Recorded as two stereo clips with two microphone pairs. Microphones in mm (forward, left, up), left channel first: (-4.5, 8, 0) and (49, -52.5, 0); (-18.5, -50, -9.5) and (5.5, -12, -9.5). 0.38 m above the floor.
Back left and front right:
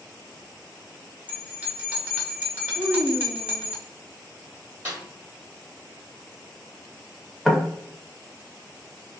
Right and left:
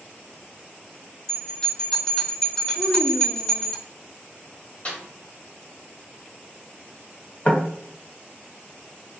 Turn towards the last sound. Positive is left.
turn(degrees=-145)